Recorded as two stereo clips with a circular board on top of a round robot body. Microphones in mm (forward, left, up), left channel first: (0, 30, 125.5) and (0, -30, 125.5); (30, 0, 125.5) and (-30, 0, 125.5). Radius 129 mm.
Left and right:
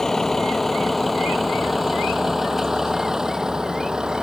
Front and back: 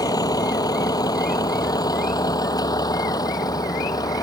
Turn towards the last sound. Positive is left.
turn(degrees=-10)